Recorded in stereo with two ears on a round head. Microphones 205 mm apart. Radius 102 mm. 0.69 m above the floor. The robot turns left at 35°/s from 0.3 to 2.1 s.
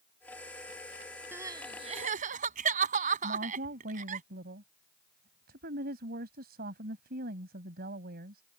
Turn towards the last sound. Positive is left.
turn(degrees=-45)  # may be behind; listen again after turning